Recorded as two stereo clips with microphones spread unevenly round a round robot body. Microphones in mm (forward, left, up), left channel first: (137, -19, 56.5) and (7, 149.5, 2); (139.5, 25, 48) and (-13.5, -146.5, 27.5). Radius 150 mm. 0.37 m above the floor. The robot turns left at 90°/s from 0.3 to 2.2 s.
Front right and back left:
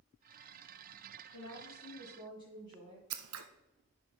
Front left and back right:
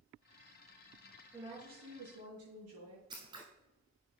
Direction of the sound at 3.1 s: 150° left.